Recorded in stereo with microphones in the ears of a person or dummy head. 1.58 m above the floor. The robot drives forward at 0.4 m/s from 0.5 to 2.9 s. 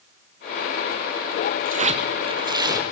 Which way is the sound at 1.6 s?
50° right (ahead or behind).